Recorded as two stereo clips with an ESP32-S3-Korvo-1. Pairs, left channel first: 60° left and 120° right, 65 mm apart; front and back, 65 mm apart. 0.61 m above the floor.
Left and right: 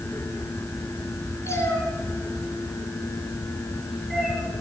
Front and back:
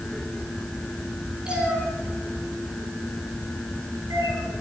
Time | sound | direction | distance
1.4 | a cat meowing | 105° left | 3 m